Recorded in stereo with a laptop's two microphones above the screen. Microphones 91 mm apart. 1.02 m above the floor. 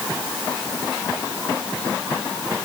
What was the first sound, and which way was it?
Only background noise.